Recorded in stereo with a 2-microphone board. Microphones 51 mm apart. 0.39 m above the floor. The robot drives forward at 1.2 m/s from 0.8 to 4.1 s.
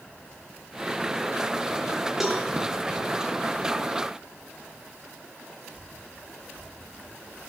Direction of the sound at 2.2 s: 5° right (ahead or behind).